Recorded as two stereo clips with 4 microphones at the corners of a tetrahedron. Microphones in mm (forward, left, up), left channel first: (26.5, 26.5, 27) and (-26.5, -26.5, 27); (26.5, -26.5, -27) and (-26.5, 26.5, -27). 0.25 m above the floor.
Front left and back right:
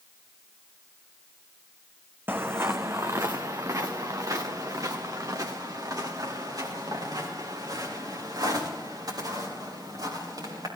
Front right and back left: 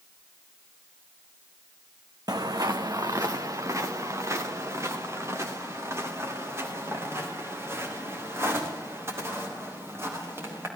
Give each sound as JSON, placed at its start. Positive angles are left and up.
{"t": 2.3, "sound": "footsteps", "azimuth_deg": 165, "distance_m": 1.1}